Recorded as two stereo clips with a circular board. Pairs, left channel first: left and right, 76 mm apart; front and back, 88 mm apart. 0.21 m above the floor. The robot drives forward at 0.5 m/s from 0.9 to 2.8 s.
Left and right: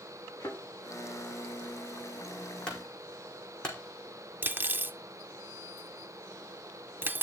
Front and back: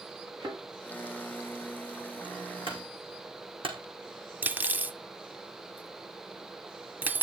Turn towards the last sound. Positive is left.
turn(degrees=-125)